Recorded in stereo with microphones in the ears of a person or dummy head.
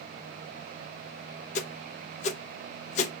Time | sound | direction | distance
1.6 | a whoosh | 35° left (ahead or behind) | 0.6 m